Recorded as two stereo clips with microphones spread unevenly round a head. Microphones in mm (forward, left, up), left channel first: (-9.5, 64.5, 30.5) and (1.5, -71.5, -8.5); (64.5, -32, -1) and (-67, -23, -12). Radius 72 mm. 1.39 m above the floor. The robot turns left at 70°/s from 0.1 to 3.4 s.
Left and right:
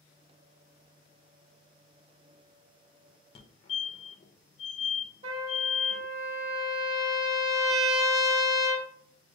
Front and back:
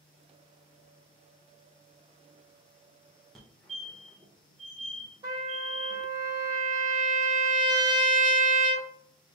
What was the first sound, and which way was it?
A fire alarm, 95° left.